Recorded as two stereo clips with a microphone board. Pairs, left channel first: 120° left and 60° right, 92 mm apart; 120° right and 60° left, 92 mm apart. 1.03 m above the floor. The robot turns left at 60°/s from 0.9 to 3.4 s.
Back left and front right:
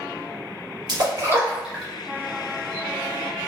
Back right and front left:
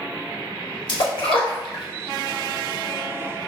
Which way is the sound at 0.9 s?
95° right.